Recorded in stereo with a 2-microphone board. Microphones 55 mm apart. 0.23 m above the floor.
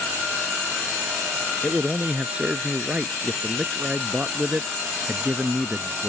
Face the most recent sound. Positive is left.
turn(degrees=-25)  # may be behind; listen again after turning